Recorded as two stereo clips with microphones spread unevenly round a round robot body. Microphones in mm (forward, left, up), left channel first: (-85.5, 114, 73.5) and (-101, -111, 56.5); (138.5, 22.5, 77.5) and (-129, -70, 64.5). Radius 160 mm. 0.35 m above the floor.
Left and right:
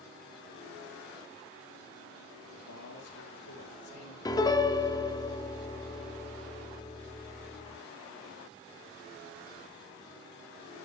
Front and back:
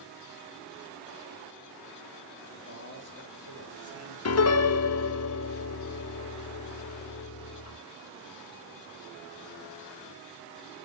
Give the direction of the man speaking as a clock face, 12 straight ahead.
9 o'clock.